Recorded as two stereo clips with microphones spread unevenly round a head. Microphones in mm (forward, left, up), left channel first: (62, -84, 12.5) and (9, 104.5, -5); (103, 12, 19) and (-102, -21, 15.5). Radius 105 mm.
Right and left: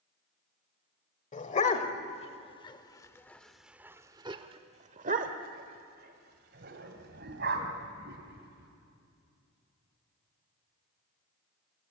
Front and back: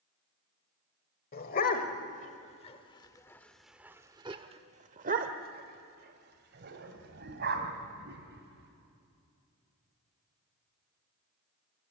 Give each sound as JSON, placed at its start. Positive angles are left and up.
{"t": 1.3, "sound": "a dog barking", "azimuth_deg": -30, "distance_m": 1.5}